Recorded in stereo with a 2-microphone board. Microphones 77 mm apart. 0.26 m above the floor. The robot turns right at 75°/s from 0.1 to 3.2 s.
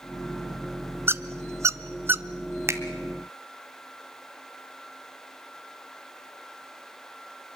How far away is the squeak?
About 0.6 m.